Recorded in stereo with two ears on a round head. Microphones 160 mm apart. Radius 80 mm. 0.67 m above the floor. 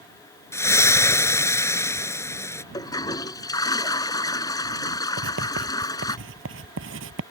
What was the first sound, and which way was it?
A splash, 15° left (ahead or behind).